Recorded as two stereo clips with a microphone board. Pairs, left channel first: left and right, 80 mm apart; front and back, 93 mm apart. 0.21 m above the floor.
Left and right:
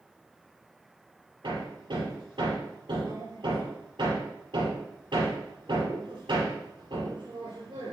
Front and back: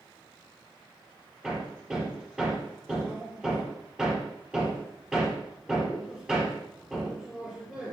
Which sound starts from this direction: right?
Hammering, at 1.4 s.